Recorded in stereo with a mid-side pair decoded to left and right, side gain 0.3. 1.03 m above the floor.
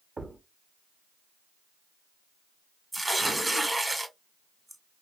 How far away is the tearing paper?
About 1.0 m.